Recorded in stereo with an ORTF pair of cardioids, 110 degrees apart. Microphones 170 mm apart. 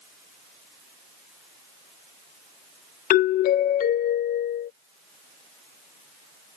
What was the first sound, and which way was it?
A doorbell, 55° left.